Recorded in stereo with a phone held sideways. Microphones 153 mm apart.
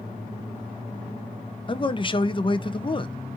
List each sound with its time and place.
1.7 s a man speaking: 35° left (ahead or behind), 0.5 m